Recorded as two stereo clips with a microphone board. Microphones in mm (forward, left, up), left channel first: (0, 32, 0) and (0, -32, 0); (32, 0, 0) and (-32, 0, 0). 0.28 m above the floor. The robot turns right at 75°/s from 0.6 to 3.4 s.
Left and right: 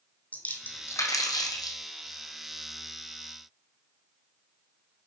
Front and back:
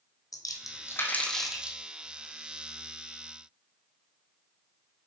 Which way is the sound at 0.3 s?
25° left.